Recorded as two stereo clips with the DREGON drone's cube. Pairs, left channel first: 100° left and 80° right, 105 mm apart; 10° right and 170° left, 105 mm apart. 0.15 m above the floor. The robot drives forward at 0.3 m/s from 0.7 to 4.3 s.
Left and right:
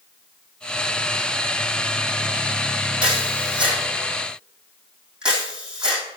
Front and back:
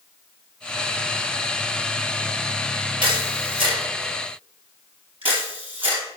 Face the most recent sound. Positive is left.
turn(degrees=-160)